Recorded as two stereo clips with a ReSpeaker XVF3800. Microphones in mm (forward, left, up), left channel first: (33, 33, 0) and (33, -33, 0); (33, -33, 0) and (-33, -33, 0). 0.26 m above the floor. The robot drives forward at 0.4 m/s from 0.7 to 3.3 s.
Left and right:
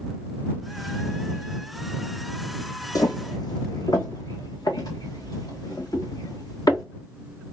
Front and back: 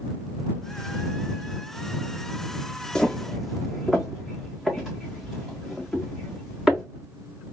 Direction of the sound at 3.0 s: 75° left.